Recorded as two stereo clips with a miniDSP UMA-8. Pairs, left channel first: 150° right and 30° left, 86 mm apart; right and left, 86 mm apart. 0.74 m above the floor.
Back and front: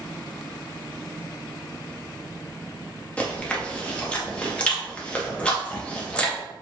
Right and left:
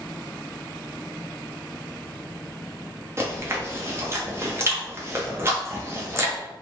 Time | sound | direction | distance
3.2 | chewing | 140° left | 0.6 m